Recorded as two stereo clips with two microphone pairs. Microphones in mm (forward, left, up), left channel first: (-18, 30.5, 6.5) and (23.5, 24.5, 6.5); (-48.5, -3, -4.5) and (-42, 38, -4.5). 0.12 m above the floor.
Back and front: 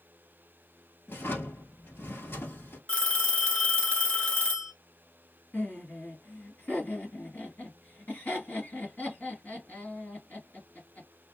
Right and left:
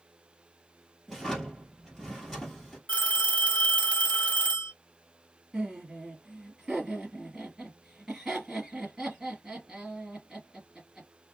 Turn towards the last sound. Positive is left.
turn(degrees=160)